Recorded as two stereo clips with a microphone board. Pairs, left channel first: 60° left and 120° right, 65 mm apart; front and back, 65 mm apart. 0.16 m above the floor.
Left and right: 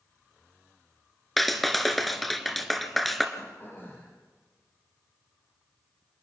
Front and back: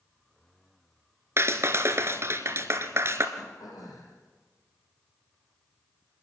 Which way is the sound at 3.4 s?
5° left.